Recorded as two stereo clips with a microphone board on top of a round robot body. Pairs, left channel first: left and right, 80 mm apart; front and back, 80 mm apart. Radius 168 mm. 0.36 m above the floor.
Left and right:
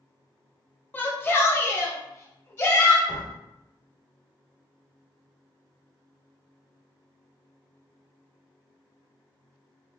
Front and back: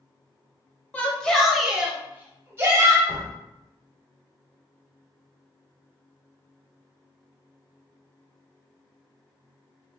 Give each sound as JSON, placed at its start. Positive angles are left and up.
{"t": 0.9, "sound": "a shout", "azimuth_deg": 55, "distance_m": 1.1}
{"t": 3.1, "sound": "a door slam", "azimuth_deg": -70, "distance_m": 1.5}